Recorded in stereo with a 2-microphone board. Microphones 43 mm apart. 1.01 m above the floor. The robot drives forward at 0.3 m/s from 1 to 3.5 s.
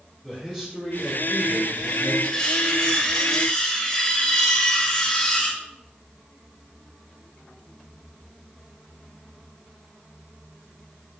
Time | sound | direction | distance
0.2 | a man speaking | 5° left (ahead or behind) | 3 m
2.2 | cutlery clinking | 15° left (ahead or behind) | 1.9 m